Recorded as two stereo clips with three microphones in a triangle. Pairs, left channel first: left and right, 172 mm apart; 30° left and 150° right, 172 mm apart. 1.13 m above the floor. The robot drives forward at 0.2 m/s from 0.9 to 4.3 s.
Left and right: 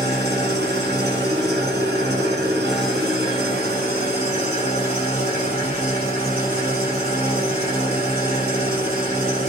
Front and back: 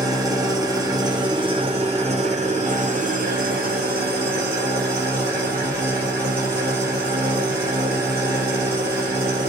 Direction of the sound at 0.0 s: 80° right.